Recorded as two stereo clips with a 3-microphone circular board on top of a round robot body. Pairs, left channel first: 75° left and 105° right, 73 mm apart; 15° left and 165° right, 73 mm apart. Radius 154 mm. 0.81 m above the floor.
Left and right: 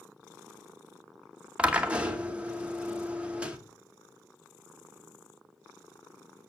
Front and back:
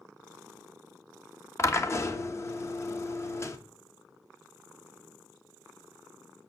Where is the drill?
35° right, 2 m.